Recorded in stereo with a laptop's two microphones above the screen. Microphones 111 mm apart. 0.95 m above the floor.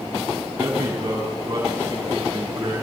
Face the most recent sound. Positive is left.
turn(degrees=-30)  # may be behind; listen again after turning